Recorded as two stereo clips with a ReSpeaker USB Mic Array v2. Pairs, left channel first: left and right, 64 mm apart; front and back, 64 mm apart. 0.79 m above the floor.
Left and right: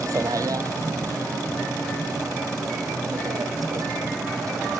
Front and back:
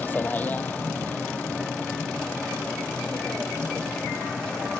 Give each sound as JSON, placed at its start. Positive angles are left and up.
{"t": 0.0, "sound": "a vehicle", "azimuth_deg": -60}